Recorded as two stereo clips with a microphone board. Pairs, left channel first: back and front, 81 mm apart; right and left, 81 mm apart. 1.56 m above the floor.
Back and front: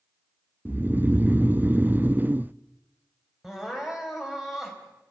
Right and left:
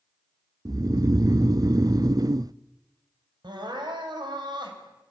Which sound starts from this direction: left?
Crying, at 3.4 s.